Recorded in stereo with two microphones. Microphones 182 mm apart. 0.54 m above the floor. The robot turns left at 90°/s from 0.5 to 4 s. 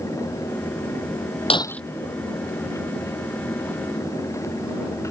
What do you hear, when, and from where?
1.5 s breaking glass: 30° left (ahead or behind); by 1.8 s 5° left (ahead or behind)